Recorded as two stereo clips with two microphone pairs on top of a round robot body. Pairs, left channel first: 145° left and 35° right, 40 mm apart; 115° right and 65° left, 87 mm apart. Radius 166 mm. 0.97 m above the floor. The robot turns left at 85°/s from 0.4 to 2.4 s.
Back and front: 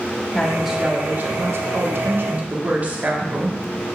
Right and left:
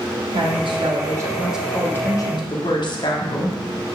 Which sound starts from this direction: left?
A woman speaking, at 0.3 s.